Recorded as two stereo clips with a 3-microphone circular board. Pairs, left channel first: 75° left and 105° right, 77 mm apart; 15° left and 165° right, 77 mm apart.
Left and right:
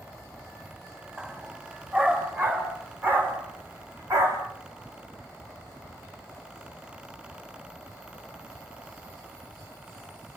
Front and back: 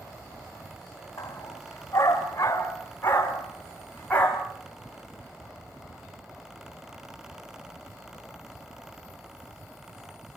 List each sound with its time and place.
1.2 s a dog barking: 35° right, 8 m; by 4.5 s 60° right, 6 m